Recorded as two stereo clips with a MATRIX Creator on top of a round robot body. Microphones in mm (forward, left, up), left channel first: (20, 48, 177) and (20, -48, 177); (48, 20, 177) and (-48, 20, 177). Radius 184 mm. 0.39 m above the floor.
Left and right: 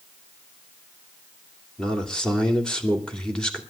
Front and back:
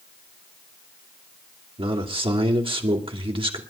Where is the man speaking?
170° left, 2.5 m.